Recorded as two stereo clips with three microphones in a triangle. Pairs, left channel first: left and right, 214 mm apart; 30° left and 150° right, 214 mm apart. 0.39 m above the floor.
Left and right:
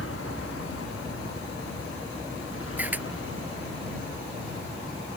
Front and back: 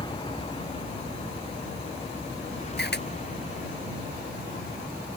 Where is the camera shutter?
10° right.